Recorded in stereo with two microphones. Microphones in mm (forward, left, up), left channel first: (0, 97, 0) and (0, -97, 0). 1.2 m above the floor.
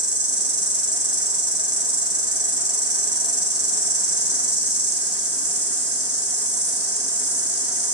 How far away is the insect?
About 1.4 m.